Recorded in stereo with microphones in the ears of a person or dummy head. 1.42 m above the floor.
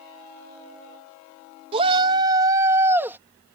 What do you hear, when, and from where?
1.7 s a shout: 35° right (ahead or behind); by 3.2 s 15° right (ahead or behind)